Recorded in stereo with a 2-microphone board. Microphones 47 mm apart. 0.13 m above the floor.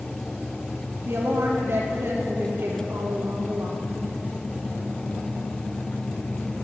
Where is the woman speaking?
60° right (ahead or behind), 3 m.